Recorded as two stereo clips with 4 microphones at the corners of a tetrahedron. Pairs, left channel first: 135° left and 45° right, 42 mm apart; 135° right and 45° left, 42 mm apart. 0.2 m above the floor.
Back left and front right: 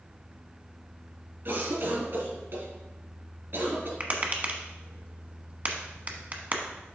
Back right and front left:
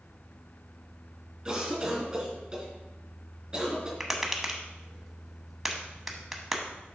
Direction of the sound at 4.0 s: 35° right.